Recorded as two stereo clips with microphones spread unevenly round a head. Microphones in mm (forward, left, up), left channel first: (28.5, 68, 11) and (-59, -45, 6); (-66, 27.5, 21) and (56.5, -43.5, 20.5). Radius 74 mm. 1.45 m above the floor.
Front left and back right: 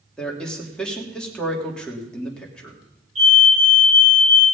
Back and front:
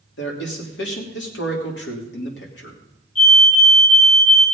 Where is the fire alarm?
170° right, 8 m.